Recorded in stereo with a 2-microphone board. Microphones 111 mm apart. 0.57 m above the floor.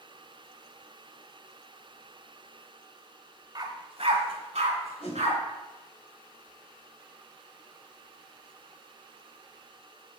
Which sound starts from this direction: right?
A dog barking, at 3.5 s.